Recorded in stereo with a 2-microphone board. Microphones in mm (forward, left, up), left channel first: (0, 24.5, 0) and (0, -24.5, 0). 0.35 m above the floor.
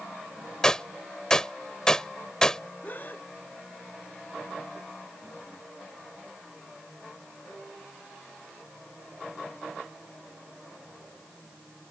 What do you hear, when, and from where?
0.6 s a gunshot: 15° left (ahead or behind)
2.8 s a gasp: 40° left (ahead or behind)